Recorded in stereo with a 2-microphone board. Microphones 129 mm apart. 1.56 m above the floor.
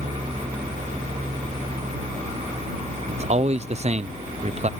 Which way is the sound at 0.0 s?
55° right (ahead or behind).